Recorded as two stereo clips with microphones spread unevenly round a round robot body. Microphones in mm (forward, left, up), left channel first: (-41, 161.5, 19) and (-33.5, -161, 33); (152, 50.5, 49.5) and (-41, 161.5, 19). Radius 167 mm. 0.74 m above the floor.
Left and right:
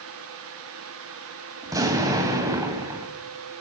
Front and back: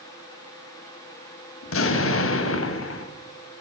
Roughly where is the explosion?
Ahead.